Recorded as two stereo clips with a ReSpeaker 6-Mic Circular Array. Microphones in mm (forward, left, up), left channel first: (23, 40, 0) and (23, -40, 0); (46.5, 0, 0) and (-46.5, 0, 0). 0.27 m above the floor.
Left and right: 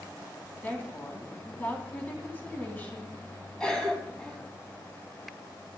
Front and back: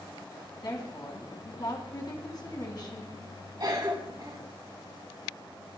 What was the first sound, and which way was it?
A woman speaking, 25° left.